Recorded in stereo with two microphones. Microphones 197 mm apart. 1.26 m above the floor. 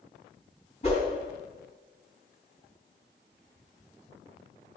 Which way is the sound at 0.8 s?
35° left (ahead or behind).